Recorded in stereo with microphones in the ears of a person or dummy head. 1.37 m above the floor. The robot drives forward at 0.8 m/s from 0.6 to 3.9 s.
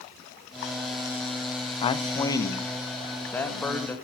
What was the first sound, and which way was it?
A man speaking, 30° left (ahead or behind).